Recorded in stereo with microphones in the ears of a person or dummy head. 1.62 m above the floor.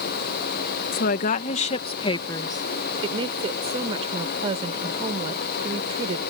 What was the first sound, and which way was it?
A woman speaking, 60° left (ahead or behind).